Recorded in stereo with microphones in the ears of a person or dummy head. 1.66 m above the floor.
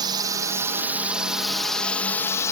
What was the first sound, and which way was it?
A drone, 25° right (ahead or behind).